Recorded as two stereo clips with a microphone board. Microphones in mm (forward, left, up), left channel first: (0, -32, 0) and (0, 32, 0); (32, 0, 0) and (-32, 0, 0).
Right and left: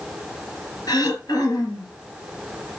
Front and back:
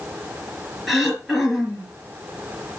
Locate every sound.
0.9 s throat clearing: 90° right, 3 m